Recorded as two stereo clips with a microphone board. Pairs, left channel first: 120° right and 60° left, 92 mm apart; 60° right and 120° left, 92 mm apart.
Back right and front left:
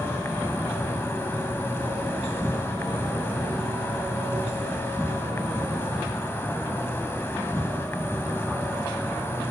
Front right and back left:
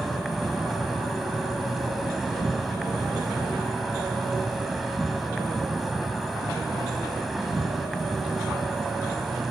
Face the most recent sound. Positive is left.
turn(degrees=-150)